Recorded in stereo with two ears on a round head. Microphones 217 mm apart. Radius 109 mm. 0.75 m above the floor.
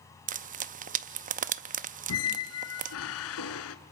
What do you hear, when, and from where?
0.3 s frying: 30° right (ahead or behind), 0.6 m
2.1 s a squeak: 65° left (ahead or behind), 1.5 m